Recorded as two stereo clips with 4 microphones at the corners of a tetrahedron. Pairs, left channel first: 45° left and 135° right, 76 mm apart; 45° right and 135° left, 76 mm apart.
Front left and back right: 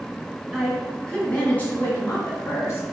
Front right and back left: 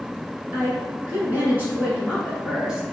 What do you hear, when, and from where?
0.5 s a woman speaking: 125° left, 1.7 m; by 2.8 s 55° left, 1.9 m